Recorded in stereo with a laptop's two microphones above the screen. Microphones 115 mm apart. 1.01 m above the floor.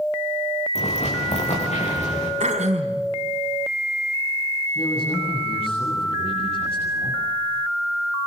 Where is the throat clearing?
80° right, 3.5 m.